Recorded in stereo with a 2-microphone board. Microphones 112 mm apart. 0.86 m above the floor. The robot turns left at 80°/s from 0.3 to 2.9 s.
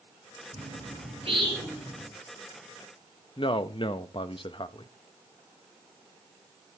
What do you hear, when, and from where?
0.5 s a bird: 65° right (ahead or behind), 4.5 m; by 2.1 s 5° left (ahead or behind), 4.5 m
3.4 s a man speaking: 50° left (ahead or behind), 0.7 m